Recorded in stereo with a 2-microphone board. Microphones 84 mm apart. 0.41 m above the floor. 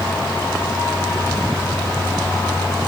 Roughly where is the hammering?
I don't hear hammering.